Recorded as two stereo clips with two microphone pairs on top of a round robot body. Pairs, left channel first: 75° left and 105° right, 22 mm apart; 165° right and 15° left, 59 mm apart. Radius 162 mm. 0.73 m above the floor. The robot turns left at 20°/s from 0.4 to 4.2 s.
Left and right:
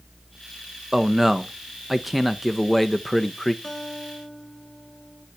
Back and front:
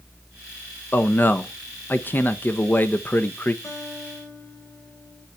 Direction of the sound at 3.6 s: 150° left.